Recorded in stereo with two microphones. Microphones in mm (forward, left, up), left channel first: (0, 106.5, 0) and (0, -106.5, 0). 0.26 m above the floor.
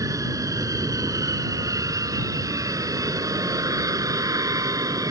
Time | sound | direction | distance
0.0 | an aircraft | 15° right (ahead or behind) | ?